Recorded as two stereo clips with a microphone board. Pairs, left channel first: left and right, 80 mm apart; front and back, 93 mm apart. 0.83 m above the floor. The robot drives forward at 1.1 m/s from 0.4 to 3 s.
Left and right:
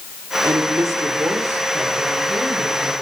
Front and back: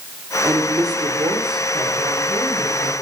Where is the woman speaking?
130° right, 1.9 m; by 2.9 s 160° right, 4 m.